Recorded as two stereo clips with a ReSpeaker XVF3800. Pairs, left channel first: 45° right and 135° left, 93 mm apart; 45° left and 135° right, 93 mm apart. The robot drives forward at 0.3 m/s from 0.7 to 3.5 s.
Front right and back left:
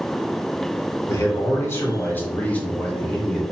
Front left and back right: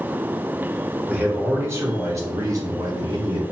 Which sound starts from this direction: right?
A man speaking, at 1.1 s.